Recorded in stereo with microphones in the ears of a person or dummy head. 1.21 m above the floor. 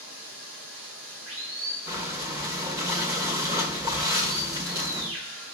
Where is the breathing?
20° right (ahead or behind), 1.6 m.